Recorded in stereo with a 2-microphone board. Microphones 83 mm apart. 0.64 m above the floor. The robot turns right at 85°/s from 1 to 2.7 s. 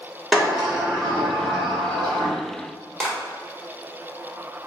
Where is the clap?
5° left (ahead or behind), 1.5 m.